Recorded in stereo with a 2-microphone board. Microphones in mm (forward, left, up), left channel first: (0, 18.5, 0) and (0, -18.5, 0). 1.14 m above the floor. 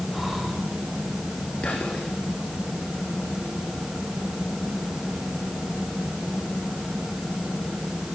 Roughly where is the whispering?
Left.